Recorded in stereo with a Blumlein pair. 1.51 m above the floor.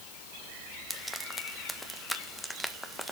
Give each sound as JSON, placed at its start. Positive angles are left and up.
{"t": 0.9, "sound": "frying", "azimuth_deg": 5, "distance_m": 1.4}